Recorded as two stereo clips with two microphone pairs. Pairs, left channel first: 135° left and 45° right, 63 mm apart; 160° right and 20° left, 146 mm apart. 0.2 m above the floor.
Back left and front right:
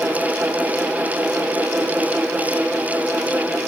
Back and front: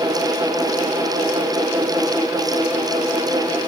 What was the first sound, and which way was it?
Only background noise.